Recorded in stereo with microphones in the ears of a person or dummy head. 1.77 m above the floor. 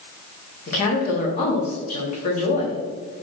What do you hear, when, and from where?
0.7 s a woman speaking: 40° left (ahead or behind), 1.0 m